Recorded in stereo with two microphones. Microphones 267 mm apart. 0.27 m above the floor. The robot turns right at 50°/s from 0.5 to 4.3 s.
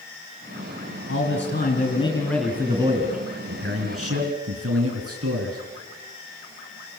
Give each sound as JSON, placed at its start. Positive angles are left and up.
{"t": 1.1, "sound": "a man speaking", "azimuth_deg": 110, "distance_m": 3.5}